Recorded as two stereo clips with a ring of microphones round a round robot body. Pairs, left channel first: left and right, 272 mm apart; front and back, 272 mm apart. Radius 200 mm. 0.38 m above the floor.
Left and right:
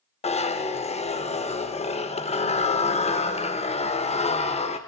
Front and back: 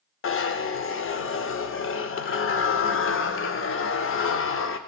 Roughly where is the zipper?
Ahead left.